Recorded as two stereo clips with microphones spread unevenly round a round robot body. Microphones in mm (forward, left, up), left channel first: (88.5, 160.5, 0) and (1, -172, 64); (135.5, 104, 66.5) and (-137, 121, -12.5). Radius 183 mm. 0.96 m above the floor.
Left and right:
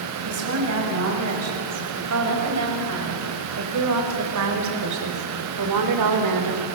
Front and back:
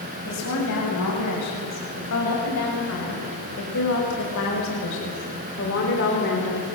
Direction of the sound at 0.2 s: 55° right.